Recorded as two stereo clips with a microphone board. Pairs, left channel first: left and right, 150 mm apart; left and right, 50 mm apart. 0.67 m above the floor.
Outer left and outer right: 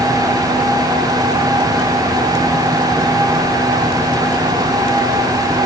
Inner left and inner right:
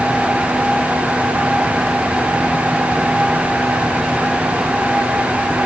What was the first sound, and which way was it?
Only background noise.